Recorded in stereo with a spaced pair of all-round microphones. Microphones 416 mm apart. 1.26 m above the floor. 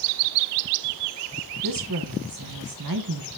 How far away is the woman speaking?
About 1.1 m.